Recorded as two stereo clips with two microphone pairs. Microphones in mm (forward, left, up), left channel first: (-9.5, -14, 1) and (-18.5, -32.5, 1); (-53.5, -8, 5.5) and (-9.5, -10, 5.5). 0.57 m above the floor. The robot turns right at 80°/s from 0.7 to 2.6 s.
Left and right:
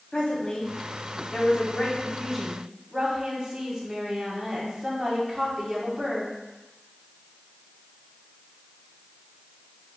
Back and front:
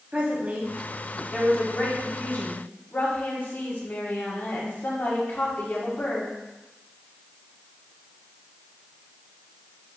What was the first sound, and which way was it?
A woman speaking, 30° left.